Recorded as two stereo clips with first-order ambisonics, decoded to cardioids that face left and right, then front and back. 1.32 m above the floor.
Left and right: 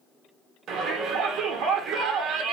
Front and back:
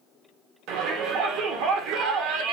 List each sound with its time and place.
0.7 s a shout: 150° right, 1.5 m